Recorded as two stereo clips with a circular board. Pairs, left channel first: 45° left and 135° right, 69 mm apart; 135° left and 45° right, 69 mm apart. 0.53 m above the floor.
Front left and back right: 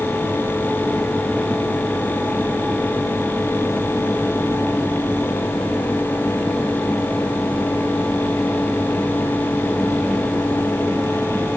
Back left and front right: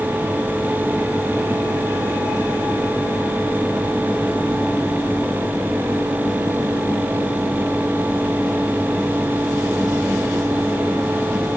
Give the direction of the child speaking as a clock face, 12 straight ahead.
No child speaking in this recording.